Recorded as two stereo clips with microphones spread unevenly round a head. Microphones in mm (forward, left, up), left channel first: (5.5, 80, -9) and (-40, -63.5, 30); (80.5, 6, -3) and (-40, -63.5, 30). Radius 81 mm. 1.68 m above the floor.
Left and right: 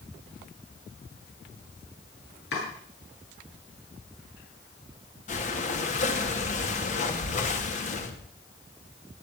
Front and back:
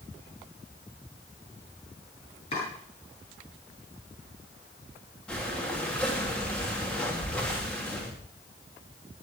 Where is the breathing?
120° left, 2.5 m.